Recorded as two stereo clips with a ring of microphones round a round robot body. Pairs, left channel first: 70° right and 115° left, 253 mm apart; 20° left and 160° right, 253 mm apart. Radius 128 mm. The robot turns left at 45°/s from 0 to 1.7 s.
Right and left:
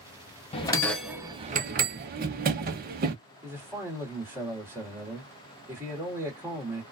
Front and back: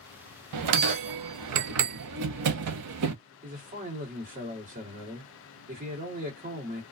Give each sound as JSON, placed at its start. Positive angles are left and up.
{"t": 0.5, "sound": "a bell", "azimuth_deg": -135, "distance_m": 0.6}
{"t": 3.4, "sound": "a man speaking", "azimuth_deg": -175, "distance_m": 1.5}